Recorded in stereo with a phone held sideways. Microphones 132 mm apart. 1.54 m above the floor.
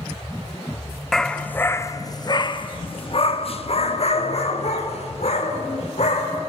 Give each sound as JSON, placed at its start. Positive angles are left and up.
{"t": 1.1, "sound": "a dog barking", "side_deg": 5, "distance_m": 1.0}